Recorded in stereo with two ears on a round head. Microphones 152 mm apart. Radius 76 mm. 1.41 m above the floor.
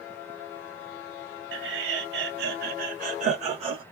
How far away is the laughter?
About 1.4 m.